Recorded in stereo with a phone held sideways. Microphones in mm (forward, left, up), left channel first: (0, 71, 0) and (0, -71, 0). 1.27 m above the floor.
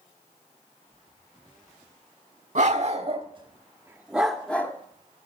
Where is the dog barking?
60° right (ahead or behind), 1.5 m; by 4.7 s 15° left (ahead or behind), 1.3 m.